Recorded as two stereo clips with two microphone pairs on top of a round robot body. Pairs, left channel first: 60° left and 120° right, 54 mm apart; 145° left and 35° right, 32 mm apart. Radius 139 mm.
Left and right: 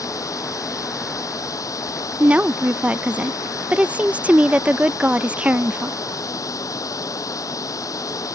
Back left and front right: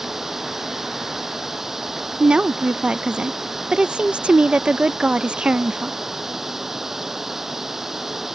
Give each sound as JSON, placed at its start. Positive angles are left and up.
{"t": 0.0, "sound": "running water", "azimuth_deg": 45}
{"t": 2.2, "sound": "a woman speaking", "azimuth_deg": -70}